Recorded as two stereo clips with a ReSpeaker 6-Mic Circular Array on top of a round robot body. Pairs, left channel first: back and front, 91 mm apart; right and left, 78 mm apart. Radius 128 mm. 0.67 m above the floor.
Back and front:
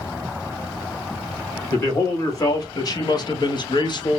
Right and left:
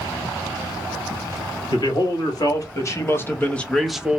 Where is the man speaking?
125° right, 1.6 m; by 4.2 s 160° left, 0.7 m.